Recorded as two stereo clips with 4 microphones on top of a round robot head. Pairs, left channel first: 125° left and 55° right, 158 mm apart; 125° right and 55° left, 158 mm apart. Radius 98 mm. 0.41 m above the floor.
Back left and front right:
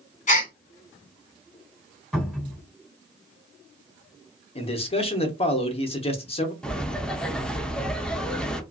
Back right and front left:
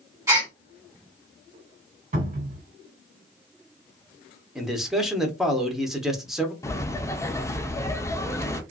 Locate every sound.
0.3 s a gasp: 120° left, 1.8 m
2.1 s a cupboard door: 35° left, 2.0 m
4.5 s a man speaking: 140° left, 0.9 m
6.6 s laughter: 160° right, 0.7 m